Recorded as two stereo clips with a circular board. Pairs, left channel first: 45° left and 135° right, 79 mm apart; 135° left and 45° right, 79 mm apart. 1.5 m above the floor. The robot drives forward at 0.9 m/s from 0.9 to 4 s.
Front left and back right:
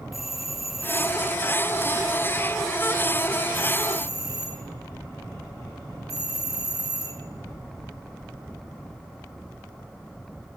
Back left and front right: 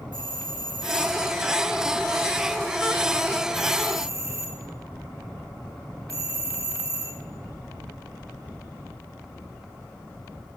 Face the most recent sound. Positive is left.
turn(degrees=-95)